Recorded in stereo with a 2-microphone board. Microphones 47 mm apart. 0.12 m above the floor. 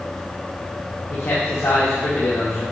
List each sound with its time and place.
1.1 s a man speaking: 80° left, 5 m